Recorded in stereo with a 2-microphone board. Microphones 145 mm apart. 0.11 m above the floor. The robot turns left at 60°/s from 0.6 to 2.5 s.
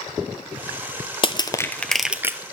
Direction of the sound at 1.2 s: 40° left (ahead or behind).